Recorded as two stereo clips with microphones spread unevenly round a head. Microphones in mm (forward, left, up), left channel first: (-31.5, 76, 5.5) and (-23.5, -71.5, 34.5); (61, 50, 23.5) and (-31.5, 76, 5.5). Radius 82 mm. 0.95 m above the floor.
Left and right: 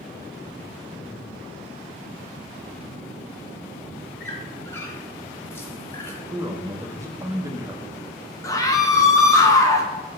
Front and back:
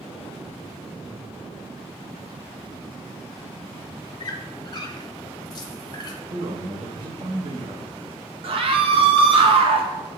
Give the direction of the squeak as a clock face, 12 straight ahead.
12 o'clock.